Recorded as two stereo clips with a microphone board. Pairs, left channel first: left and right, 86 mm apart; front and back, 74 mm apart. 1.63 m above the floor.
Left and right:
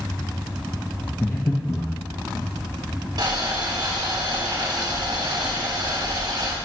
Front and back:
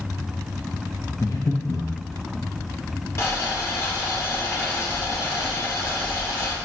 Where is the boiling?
50° right, 1.6 m.